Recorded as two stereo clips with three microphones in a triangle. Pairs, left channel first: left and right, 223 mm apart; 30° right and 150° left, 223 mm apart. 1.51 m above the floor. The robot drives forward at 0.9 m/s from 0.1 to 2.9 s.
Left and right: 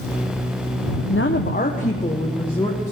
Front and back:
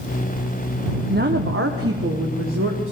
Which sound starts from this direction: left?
A woman speaking, at 1.1 s.